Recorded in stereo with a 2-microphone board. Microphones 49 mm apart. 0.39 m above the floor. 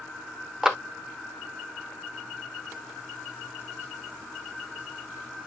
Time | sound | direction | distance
0.6 | a clap | 10° right (ahead or behind) | 0.7 m